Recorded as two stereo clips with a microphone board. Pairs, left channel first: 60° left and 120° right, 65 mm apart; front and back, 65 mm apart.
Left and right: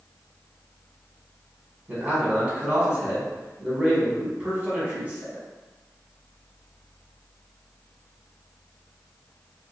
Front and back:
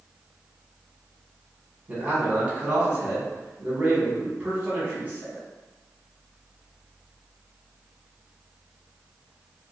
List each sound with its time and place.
1.9 s a man speaking: 155° right, 1.1 m